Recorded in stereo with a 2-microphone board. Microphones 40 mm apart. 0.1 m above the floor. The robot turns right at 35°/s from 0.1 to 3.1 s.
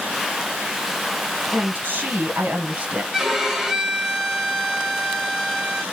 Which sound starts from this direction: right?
A woman speaking, at 1.5 s.